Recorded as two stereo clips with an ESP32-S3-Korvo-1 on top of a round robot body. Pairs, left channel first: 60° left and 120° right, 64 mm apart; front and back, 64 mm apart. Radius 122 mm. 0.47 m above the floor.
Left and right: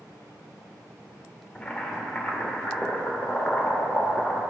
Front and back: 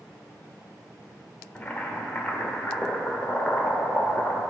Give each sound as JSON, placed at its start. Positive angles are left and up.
{"t": 1.6, "sound": "boiling", "azimuth_deg": 30, "distance_m": 1.1}